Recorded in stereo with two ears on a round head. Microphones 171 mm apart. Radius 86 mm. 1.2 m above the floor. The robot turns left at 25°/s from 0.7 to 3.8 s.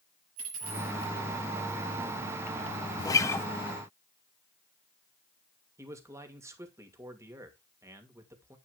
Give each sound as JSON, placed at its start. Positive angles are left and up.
{"t": 0.4, "sound": "a dropped coin", "side_deg": -80, "distance_m": 5.5}
{"t": 3.0, "sound": "a guitar", "side_deg": 20, "distance_m": 0.7}
{"t": 5.8, "sound": "a man speaking", "side_deg": -15, "distance_m": 2.5}